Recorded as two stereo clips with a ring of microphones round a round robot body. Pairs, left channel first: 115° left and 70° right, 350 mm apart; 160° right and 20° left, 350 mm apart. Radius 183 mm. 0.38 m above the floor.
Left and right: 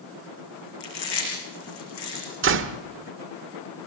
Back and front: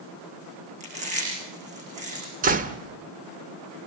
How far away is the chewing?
About 8.5 m.